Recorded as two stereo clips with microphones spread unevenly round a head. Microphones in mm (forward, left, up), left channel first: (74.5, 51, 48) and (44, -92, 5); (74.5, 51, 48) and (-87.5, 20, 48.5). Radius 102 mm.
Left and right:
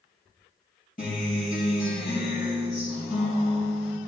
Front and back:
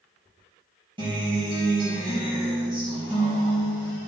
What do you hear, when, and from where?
1.0 s a guitar: 130° left, 4 m